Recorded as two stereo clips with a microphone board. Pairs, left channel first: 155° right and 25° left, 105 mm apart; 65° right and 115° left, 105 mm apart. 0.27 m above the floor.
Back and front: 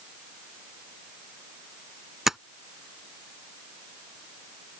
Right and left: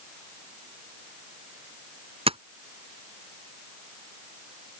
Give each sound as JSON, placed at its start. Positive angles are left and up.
{"t": 2.3, "sound": "tapping", "azimuth_deg": 110}